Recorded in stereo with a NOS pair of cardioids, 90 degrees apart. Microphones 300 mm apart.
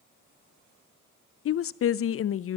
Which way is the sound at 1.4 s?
50° left.